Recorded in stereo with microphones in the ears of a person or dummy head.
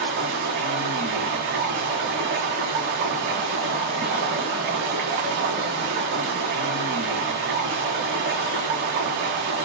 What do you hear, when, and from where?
0.0 s running water: 60° right (ahead or behind), 1.2 m